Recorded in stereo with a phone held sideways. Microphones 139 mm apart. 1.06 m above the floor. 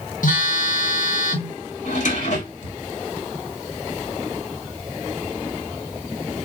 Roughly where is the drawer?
Left.